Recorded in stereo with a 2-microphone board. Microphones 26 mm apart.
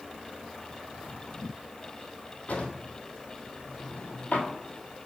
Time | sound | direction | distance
2.5 | a drawer | 70° left (ahead or behind) | 1.4 m